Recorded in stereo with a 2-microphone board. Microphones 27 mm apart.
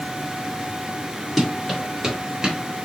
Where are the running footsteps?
Centre (ahead or behind), 1.6 m; by 2.6 s 25° right (ahead or behind), 1.6 m.